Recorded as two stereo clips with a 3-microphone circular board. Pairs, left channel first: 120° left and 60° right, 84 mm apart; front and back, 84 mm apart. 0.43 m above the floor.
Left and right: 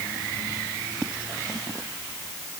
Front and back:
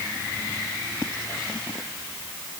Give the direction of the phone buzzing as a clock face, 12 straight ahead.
No phone buzzing in this recording.